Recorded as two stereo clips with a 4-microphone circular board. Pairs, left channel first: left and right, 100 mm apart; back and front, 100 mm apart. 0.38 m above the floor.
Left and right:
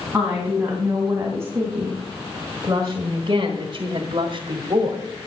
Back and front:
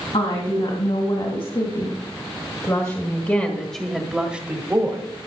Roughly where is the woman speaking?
Behind.